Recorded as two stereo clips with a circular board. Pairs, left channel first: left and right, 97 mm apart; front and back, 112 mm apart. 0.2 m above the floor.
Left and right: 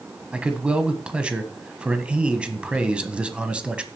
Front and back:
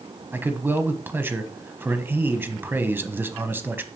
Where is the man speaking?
150° right, 1.2 m.